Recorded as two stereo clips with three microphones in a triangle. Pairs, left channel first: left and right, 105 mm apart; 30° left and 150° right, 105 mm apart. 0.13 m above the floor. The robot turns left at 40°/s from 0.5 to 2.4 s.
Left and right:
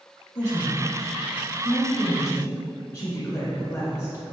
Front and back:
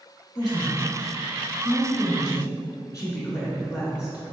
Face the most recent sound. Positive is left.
turn(degrees=50)